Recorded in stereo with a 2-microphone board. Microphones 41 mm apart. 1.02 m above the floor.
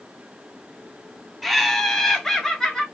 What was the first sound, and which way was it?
Laughter, centre (ahead or behind).